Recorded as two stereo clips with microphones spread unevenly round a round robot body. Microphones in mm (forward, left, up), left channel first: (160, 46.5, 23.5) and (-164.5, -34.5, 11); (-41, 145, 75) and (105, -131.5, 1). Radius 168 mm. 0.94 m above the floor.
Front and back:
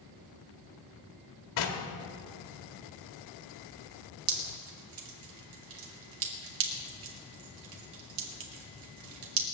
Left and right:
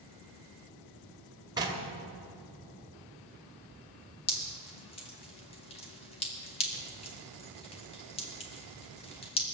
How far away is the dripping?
About 1.8 m.